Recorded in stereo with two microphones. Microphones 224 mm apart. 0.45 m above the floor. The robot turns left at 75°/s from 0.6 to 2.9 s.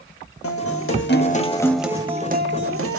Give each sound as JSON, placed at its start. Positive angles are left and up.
{"t": 0.4, "sound": "a guitar", "azimuth_deg": 90, "distance_m": 0.6}